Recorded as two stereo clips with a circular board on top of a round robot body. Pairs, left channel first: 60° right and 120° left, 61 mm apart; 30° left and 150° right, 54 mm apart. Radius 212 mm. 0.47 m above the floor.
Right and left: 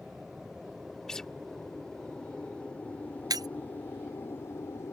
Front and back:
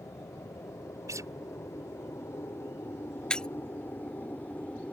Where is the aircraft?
35° left; by 4.9 s 30° right.